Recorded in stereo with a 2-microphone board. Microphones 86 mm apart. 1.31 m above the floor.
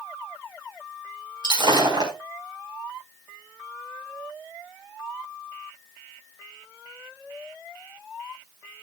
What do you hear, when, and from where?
1.4 s breaking glass: 60° right (ahead or behind), 4 m